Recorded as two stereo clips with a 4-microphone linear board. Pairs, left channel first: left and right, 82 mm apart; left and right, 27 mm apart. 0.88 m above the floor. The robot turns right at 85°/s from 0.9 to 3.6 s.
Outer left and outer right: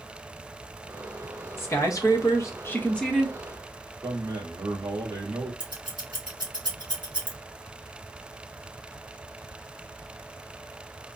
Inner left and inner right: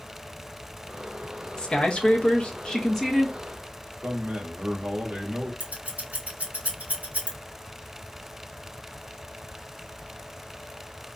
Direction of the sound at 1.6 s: 45° left.